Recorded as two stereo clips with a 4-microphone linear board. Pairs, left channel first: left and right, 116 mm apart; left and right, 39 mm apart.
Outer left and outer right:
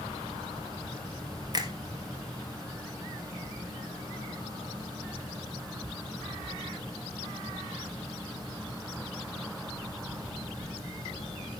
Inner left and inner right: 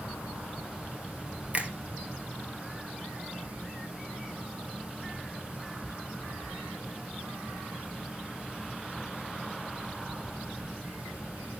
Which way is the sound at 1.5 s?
35° right (ahead or behind).